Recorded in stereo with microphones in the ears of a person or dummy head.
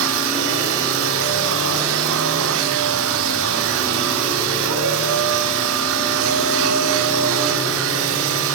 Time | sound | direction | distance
0.0 | a machine running | 70° right (ahead or behind) | 1.9 m